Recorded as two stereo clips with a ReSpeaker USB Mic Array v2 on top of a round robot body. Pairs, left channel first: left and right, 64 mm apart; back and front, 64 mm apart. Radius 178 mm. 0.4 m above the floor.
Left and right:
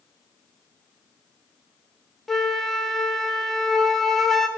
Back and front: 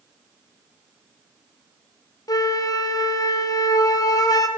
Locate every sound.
2.3 s a flute: 175° left, 0.8 m